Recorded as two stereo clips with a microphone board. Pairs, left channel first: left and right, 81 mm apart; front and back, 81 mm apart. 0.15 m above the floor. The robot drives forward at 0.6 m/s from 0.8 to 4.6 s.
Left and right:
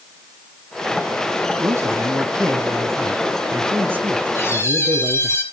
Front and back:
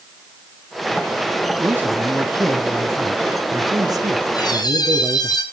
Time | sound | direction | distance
1.6 | a man speaking | 125° right | 2 m
4.3 | a squeak | 30° left | 3.5 m